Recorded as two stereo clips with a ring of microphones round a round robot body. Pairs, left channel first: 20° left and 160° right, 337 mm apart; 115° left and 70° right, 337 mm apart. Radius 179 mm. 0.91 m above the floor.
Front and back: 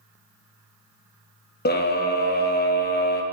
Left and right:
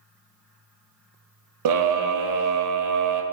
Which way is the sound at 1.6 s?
40° right.